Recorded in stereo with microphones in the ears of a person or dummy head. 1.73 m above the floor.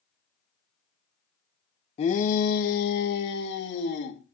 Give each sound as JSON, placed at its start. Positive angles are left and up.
{"t": 2.0, "sound": "a shout", "side_deg": 35, "distance_m": 0.8}